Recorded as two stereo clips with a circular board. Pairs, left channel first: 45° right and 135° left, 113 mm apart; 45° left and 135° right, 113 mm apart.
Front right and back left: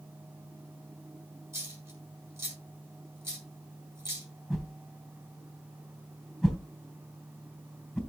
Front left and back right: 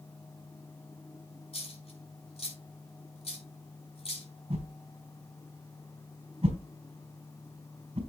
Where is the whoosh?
135° right, 3 m.